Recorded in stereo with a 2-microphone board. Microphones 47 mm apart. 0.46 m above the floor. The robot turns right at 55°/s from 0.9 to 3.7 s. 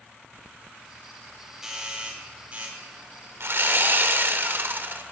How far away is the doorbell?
About 1.8 m.